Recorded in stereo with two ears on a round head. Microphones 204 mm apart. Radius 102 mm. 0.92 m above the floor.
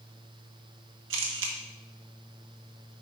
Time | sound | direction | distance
1.1 | a camera shutter | 55° right (ahead or behind) | 1.5 m